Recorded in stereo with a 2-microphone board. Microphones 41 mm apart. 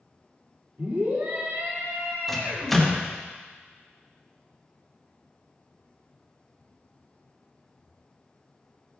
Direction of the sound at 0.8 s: 85° right.